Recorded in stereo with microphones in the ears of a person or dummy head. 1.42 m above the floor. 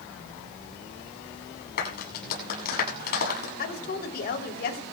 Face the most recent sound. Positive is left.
turn(degrees=55)  # may be behind; listen again after turning